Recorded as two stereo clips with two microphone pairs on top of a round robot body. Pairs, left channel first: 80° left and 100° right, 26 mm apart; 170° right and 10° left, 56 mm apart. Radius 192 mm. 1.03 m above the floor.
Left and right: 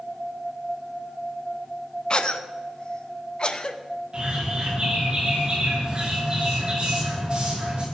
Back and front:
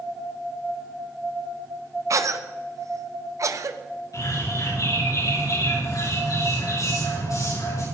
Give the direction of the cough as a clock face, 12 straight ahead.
11 o'clock.